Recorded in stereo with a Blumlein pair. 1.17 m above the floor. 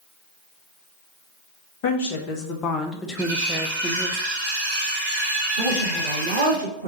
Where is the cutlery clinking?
60° right, 2.0 m.